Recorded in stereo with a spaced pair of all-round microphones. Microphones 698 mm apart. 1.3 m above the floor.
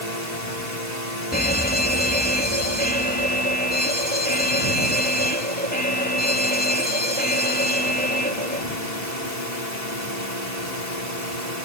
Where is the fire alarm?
10° left (ahead or behind).